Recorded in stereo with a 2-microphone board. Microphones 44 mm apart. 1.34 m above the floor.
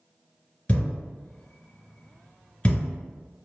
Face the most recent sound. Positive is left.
turn(degrees=30)  # may be behind; listen again after turning